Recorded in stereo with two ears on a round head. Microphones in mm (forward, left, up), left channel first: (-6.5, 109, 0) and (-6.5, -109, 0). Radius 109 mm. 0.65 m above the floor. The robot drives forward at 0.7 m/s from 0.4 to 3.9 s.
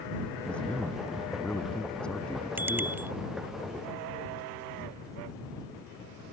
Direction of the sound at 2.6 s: 10° right (ahead or behind).